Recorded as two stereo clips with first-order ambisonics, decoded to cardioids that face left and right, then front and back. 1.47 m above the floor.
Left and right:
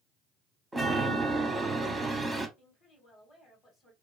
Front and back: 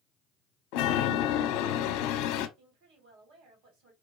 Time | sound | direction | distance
0.7 | a chime | 10° right | 0.7 m
2.6 | a woman speaking | 160° left | 2.5 m